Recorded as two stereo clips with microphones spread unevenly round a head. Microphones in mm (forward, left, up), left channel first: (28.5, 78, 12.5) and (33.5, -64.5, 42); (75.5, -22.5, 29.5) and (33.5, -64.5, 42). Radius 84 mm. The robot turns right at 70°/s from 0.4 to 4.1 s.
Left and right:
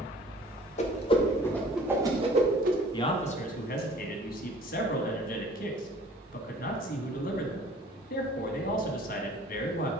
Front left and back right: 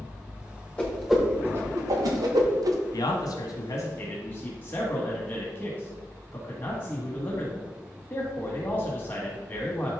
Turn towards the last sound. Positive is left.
turn(degrees=110)